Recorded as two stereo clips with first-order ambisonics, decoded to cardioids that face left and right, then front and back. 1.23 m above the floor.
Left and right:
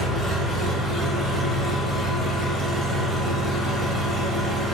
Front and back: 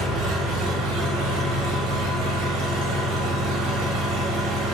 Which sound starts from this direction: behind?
An engine running, at 0.0 s.